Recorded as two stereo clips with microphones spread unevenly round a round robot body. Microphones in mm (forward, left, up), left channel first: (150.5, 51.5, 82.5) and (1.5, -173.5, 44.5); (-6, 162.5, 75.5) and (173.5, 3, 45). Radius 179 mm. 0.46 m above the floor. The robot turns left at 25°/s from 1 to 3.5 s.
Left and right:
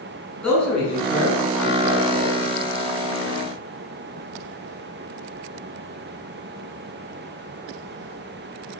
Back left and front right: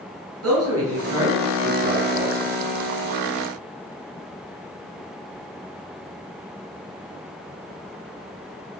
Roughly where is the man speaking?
Ahead right.